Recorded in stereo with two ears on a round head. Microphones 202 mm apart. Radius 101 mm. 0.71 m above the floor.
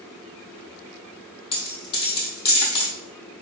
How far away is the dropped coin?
About 1.4 m.